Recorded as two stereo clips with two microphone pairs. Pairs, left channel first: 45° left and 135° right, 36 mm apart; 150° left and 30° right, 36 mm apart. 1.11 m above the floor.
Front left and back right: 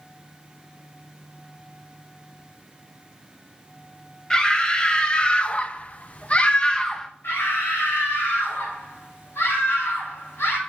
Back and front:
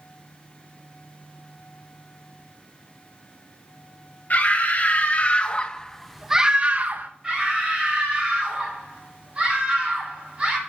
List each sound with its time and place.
4.3 s a scream: 115° left, 1.6 m; by 7.1 s 25° right, 0.8 m
7.2 s a scream: 35° left, 5.5 m